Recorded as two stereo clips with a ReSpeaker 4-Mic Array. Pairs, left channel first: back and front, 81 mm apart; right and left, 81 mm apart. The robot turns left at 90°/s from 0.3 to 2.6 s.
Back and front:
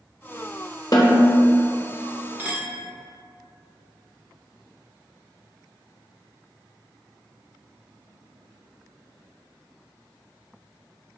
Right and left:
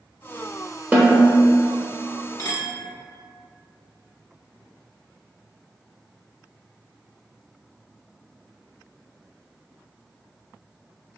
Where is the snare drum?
155° left, 0.8 m; by 1.2 s 125° left, 0.8 m.